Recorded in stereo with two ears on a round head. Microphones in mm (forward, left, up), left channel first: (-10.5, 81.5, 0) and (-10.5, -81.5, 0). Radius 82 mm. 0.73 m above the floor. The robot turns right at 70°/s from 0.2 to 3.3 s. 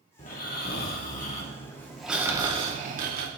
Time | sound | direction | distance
0.2 | snoring | 55° left | 1.9 m